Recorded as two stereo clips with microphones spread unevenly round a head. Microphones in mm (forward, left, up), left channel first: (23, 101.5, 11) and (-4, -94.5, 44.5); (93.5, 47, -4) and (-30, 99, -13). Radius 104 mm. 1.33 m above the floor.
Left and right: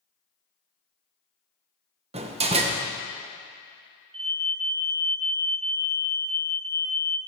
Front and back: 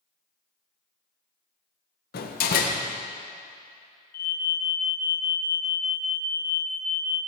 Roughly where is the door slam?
Ahead right.